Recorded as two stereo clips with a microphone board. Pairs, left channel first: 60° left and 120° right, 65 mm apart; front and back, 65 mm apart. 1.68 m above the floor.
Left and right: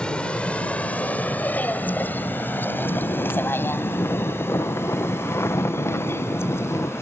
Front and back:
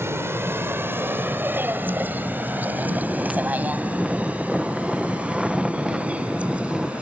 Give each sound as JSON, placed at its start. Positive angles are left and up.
{"t": 0.0, "sound": "a vehicle", "azimuth_deg": 135}
{"t": 2.7, "sound": "snoring", "azimuth_deg": 105}